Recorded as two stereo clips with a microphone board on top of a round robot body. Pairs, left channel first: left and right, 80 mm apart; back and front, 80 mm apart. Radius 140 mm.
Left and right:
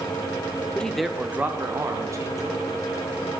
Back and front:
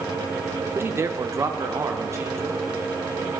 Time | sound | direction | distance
0.8 | a man speaking | 25° left | 1.0 m